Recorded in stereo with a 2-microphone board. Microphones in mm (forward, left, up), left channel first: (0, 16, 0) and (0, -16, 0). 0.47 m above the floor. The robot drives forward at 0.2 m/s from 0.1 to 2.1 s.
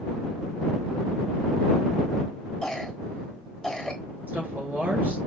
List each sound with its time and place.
2.6 s a cough: 20° left (ahead or behind), 1.0 m
4.3 s a woman speaking: 55° right (ahead or behind), 1.7 m